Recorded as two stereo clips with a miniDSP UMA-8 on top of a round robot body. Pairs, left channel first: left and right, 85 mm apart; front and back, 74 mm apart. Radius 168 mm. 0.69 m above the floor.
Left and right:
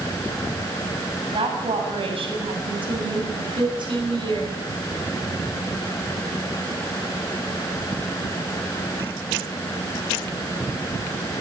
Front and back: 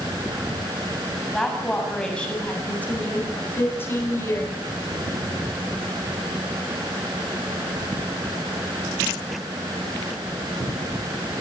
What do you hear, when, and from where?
1.3 s a woman speaking: 85° right, 7 m; by 4.5 s 55° right, 8.5 m